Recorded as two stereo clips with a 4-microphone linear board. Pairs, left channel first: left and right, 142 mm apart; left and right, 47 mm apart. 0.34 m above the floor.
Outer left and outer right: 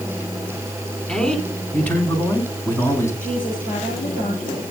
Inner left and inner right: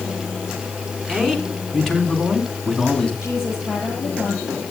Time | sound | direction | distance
1.1 | a man speaking | 5° left (ahead or behind) | 3.5 m
3.2 | a woman speaking | 70° left (ahead or behind) | 9 m